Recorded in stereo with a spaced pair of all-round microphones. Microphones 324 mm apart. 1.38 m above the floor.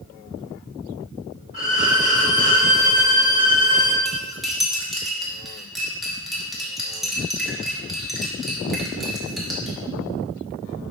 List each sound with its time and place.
1.5 s a violin: 70° right (ahead or behind), 1.3 m
4.0 s cutlery clinking: centre (ahead or behind), 1.1 m